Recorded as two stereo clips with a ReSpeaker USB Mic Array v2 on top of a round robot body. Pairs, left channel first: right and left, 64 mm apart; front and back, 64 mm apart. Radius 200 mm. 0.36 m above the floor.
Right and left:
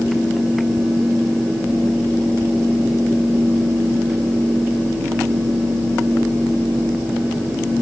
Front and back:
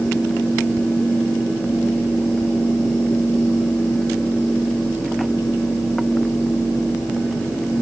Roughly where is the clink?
No clink in this recording.